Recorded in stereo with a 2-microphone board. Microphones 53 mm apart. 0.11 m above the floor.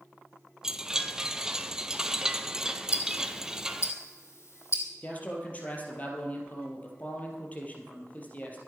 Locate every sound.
0.6 s a chime: 10° right (ahead or behind), 0.8 m
2.9 s ticking: 55° left (ahead or behind), 2.5 m
5.0 s a man speaking: 30° left (ahead or behind), 3 m